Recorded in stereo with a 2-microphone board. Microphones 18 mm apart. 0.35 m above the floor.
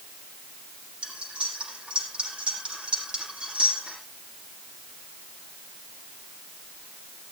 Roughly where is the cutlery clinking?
Right.